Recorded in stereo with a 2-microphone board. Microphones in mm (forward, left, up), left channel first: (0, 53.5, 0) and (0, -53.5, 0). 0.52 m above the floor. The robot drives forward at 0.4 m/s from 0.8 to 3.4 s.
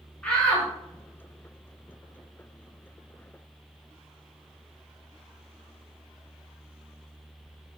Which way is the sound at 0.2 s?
10° left (ahead or behind).